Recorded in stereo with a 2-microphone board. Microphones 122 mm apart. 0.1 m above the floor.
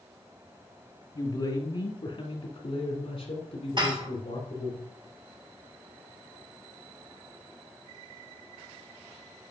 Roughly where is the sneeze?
No sneeze in this recording.